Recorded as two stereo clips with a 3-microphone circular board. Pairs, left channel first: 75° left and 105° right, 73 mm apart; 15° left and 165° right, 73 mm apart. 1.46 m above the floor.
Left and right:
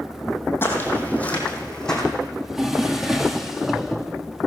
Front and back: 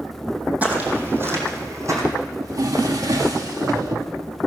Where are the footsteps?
130° left, 3 m; by 2.0 s 160° left, 3.5 m.